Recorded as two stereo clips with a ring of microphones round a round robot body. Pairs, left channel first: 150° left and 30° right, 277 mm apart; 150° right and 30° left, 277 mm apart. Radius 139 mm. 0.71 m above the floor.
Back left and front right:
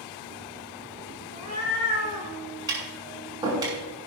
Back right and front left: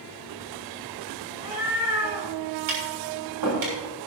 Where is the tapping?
45° left, 6.5 m.